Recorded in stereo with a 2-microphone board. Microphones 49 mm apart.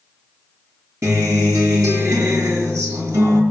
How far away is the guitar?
About 6 m.